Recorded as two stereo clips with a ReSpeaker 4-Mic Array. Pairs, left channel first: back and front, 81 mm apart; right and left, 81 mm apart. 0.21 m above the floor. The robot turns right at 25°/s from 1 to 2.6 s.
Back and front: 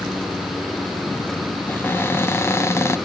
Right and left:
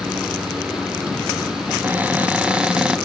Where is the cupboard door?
135° left, 1.5 m; by 3.0 s 160° left, 1.5 m.